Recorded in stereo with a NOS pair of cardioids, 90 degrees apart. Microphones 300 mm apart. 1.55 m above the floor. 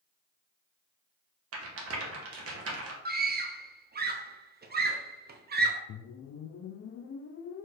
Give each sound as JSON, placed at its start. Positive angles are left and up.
{"t": 1.5, "sound": "a rattle", "azimuth_deg": -50, "distance_m": 1.2}
{"t": 3.0, "sound": "a scream", "azimuth_deg": -30, "distance_m": 0.9}
{"t": 5.9, "sound": "a whoosh", "azimuth_deg": 50, "distance_m": 0.5}